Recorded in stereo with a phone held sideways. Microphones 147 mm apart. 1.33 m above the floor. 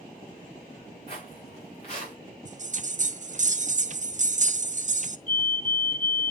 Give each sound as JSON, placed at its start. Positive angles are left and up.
{"t": 1.1, "sound": "footsteps", "side_deg": 40, "distance_m": 6.5}
{"t": 2.5, "sound": "a bell", "side_deg": -50, "distance_m": 0.5}
{"t": 5.3, "sound": "a fire alarm", "side_deg": 55, "distance_m": 2.5}